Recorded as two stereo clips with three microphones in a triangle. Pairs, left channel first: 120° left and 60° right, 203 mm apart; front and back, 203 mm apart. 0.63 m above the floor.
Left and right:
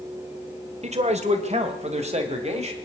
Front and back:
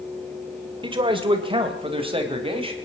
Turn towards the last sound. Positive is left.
turn(degrees=-120)